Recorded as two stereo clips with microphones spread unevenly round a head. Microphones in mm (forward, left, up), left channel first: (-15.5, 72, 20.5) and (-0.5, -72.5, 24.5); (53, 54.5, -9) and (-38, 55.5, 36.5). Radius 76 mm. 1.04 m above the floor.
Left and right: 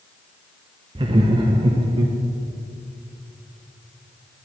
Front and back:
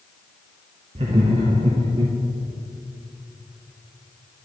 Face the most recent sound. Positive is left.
turn(degrees=-130)